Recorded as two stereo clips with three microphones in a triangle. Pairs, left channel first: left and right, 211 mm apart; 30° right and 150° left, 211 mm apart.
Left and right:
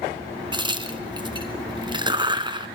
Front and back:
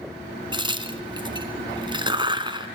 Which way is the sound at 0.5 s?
150° right.